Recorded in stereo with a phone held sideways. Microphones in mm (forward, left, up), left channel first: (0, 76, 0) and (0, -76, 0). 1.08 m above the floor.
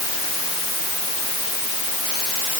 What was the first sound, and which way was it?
Only background noise.